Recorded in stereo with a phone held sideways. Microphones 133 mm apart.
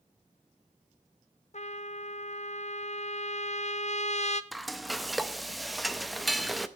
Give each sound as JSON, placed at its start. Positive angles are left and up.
{"t": 1.5, "sound": "a trumpet", "side_deg": 60, "distance_m": 0.5}
{"t": 4.5, "sound": "frying", "side_deg": 0, "distance_m": 0.6}